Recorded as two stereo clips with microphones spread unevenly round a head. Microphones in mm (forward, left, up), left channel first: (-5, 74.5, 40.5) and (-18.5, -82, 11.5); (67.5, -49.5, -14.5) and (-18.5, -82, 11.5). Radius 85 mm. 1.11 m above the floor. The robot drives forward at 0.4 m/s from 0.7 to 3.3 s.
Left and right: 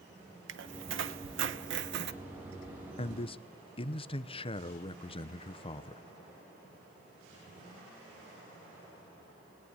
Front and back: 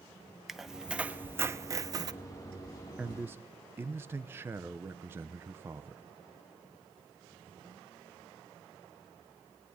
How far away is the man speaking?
About 0.6 m.